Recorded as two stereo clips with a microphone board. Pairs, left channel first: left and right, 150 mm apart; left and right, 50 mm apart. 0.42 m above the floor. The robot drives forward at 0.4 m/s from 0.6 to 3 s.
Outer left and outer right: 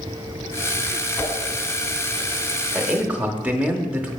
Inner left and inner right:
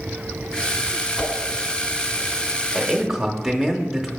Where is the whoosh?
10° left (ahead or behind), 1.8 m; by 1.3 s 15° left (ahead or behind), 1.7 m.